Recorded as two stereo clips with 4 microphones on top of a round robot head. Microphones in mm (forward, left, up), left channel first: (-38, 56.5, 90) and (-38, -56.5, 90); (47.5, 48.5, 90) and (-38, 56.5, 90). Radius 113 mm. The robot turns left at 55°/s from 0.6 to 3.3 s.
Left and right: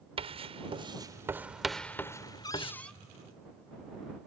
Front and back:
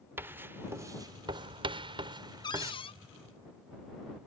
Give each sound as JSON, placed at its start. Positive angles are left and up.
{"t": 0.2, "sound": "writing", "azimuth_deg": -120}
{"t": 2.4, "sound": "a cupboard door", "azimuth_deg": 35}